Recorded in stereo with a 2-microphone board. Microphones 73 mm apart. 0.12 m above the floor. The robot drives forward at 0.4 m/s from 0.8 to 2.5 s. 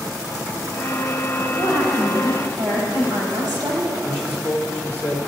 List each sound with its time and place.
1.6 s a woman speaking: 65° right (ahead or behind), 3.5 m; by 3.9 s 70° right (ahead or behind), 3.5 m
4.0 s a man speaking: 30° right (ahead or behind), 2.5 m